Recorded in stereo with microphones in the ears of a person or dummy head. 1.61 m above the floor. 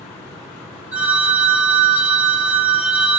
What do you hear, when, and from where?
0.9 s a phone ringing: 10° right (ahead or behind), 1.3 m